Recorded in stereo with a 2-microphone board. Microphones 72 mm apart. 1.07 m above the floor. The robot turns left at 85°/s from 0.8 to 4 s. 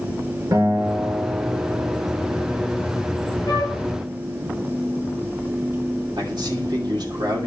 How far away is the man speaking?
About 2.5 m.